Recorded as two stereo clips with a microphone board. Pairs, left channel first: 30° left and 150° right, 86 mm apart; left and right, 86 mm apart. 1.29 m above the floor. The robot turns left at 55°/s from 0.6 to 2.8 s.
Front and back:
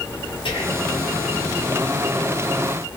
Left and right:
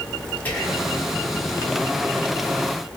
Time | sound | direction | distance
0.5 | whispering | 20° left | 1.5 m